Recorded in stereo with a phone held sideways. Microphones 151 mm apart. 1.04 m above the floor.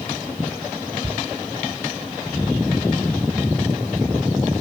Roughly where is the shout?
Right.